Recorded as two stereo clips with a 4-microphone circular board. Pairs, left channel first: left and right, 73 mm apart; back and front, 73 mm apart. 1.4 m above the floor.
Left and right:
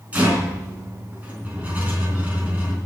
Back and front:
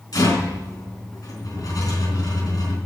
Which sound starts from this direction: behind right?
A rattle, at 0.1 s.